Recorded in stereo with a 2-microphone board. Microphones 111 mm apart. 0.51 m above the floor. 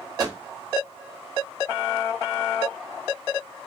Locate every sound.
0.2 s a microwave: 35° right (ahead or behind), 0.9 m